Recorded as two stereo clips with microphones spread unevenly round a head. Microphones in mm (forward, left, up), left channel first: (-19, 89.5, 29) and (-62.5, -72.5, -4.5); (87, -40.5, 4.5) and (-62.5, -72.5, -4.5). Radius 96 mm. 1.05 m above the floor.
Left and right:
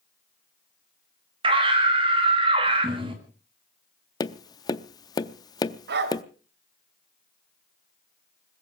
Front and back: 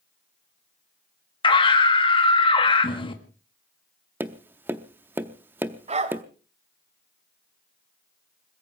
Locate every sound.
1.4 s a scream: 45° right, 1.8 m
4.2 s tapping: 115° left, 0.6 m
5.9 s a dog barking: 125° right, 1.6 m